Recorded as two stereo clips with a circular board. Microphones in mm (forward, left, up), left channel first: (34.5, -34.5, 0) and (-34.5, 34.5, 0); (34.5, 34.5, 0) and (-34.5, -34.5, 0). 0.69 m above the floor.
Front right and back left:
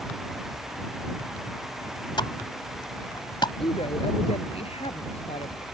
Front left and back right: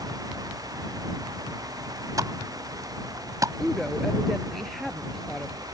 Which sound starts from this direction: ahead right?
A woman speaking, at 3.6 s.